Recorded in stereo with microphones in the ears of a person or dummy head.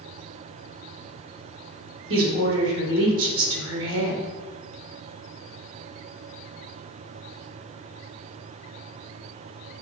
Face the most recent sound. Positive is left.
turn(degrees=-75)  # may be behind; listen again after turning